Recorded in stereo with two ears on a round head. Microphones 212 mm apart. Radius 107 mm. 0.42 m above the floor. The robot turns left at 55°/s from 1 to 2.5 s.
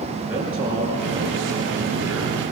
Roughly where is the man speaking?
Ahead.